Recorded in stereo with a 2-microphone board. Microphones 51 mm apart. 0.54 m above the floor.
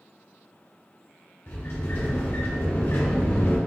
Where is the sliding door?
55° left (ahead or behind), 1.4 m.